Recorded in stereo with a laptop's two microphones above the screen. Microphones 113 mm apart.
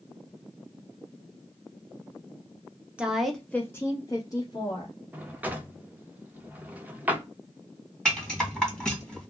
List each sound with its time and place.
3.0 s a woman speaking: 10° right (ahead or behind), 0.6 m; by 4.9 s 40° left (ahead or behind), 1.1 m
5.1 s a drawer: 15° right (ahead or behind), 0.6 m
8.1 s a rattle: 5° left (ahead or behind), 1.4 m